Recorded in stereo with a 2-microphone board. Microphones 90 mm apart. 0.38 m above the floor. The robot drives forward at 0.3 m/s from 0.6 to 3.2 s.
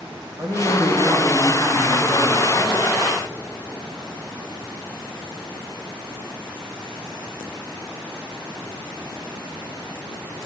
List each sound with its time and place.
0.4 s a man speaking: 35° right (ahead or behind), 1.4 m; by 3.0 s 30° right (ahead or behind), 1.8 m